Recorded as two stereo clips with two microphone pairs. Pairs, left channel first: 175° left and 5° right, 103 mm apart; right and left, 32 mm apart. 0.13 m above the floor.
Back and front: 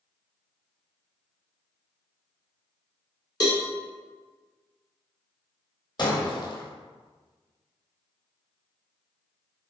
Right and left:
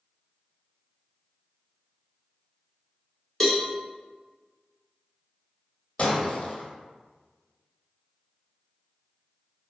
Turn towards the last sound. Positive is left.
turn(degrees=-145)